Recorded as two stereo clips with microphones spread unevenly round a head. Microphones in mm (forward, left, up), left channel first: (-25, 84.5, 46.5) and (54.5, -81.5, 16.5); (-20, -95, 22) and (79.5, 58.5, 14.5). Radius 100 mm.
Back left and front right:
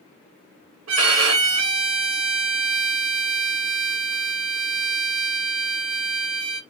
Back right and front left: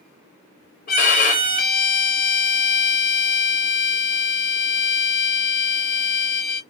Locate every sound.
0.9 s a violin: 80° right, 2.5 m